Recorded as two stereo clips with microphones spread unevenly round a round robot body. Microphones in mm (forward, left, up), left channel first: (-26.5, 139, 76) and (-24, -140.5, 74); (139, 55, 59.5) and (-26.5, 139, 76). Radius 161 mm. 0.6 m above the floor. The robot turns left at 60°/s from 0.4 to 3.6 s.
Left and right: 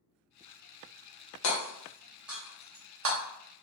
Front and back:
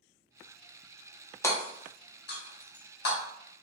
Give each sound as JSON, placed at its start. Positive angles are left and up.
{"t": 1.4, "sound": "hammering", "azimuth_deg": 50, "distance_m": 1.0}